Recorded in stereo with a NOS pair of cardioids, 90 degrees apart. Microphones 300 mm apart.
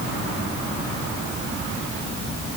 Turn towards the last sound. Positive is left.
No sound to turn to.